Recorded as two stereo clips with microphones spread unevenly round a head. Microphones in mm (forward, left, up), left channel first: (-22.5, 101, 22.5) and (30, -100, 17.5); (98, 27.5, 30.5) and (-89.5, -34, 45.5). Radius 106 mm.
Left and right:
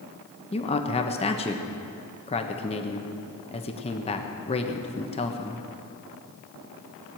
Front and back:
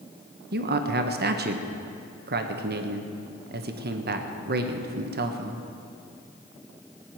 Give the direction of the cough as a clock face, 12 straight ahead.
I don't hear a cough.